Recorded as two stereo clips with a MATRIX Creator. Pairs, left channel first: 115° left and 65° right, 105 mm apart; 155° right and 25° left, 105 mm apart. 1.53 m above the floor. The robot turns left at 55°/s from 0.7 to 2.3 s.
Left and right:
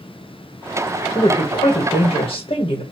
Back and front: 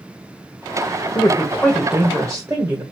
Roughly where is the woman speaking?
Behind left.